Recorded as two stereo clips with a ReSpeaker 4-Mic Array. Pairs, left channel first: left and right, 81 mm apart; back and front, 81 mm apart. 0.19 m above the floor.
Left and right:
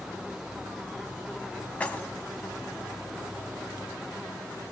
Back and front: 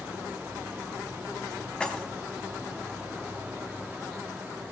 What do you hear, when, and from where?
1.8 s keys jangling: 125° left, 0.7 m